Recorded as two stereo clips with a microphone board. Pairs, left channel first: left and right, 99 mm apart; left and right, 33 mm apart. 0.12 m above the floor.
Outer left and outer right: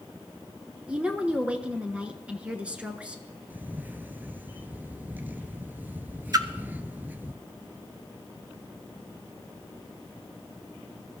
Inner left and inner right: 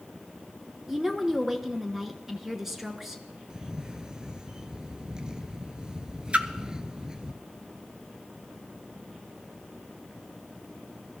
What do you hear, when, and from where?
0.9 s a woman speaking: 10° right (ahead or behind), 1.1 m
3.5 s a camera shutter: 20° right (ahead or behind), 0.5 m
6.3 s a splash: 40° right (ahead or behind), 0.6 m